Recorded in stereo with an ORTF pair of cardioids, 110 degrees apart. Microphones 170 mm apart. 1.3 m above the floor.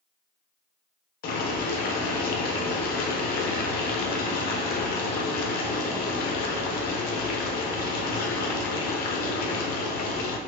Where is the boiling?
65° left, 0.6 m.